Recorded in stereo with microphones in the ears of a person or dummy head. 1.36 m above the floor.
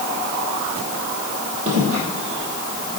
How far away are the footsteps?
About 2.5 m.